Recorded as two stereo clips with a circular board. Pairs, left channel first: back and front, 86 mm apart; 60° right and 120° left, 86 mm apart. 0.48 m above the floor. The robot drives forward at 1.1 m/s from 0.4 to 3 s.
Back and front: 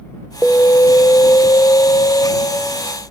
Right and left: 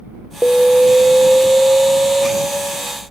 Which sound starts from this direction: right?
An alarm, at 0.4 s.